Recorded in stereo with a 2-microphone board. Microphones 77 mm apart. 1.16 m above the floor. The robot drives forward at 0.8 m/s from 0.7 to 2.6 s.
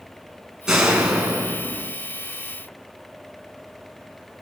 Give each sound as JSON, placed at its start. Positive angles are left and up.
{"t": 0.7, "sound": "a door slam", "side_deg": -10, "distance_m": 7.0}